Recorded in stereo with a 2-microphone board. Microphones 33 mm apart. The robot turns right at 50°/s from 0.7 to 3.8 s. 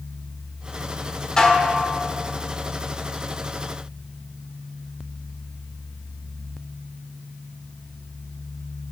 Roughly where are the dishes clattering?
Left.